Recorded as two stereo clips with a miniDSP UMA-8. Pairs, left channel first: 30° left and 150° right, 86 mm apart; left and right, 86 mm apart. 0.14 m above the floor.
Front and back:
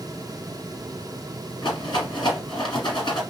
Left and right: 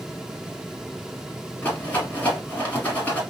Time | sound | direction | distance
1.6 | a rattle | 20° left | 3.5 m